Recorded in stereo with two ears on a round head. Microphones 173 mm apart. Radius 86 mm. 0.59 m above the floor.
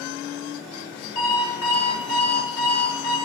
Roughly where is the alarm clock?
Left.